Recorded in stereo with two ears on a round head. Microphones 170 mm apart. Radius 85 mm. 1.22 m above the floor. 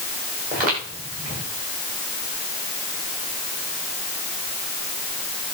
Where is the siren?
I don't hear a siren.